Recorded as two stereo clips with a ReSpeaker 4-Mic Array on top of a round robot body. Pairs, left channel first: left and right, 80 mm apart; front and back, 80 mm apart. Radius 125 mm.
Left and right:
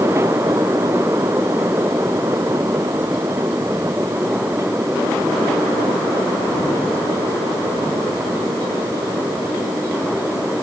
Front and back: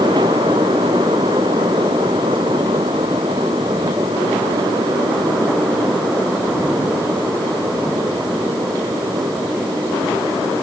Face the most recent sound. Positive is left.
No sound to turn to.